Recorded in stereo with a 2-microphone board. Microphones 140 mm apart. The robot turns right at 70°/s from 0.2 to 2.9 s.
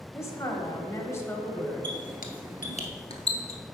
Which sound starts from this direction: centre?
A woman speaking, at 0.1 s.